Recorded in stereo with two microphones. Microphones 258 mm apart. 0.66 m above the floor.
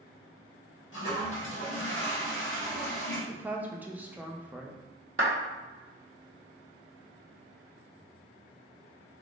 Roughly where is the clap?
Right.